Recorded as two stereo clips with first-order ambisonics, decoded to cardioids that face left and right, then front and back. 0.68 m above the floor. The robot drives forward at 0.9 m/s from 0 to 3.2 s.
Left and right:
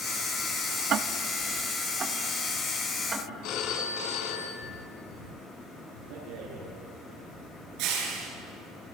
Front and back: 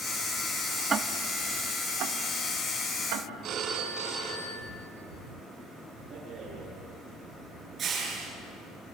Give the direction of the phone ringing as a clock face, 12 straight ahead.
8 o'clock.